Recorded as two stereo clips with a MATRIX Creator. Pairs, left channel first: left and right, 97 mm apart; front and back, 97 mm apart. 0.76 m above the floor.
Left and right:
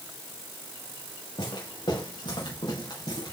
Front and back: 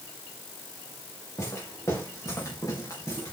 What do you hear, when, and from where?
1.4 s footsteps: 60° left, 7.5 m